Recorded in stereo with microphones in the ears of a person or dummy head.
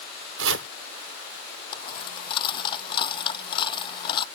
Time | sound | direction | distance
0.4 | chopping | 80° right | ?
1.7 | a dropped coin | 35° left (ahead or behind) | ?